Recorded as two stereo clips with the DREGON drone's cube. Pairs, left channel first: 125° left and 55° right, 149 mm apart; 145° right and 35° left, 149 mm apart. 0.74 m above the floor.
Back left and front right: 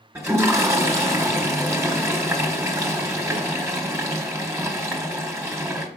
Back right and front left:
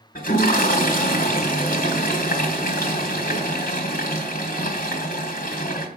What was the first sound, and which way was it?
A toilet flushing, 130° right.